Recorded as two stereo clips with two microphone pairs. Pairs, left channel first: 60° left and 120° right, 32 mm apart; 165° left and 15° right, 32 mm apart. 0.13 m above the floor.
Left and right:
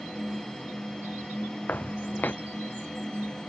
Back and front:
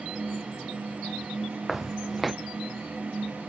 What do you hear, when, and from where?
1.7 s footsteps: 75° left